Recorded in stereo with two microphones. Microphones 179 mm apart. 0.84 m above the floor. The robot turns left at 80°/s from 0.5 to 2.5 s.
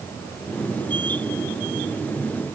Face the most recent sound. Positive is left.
No sound to turn to.